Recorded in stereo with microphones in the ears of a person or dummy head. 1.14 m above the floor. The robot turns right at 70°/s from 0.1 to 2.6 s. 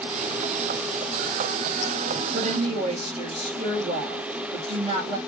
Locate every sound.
2.3 s a woman speaking: 45° right (ahead or behind), 1.7 m; by 5.2 s 30° right (ahead or behind), 1.7 m